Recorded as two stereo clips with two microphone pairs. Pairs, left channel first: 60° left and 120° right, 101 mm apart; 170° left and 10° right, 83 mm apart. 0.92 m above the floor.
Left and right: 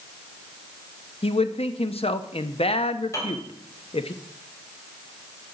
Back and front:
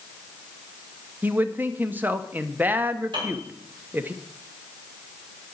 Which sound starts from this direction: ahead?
A piano, at 3.1 s.